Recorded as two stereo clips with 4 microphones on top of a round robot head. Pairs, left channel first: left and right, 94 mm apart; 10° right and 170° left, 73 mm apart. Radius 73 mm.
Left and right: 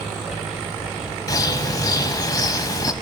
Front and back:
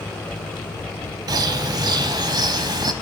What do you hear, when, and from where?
1.3 s a bird: 140° left, 1.1 m